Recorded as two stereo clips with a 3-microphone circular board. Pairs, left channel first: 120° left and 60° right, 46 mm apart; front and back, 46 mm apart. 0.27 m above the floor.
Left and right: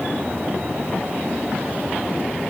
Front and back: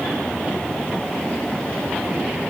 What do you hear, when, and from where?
Only background noise.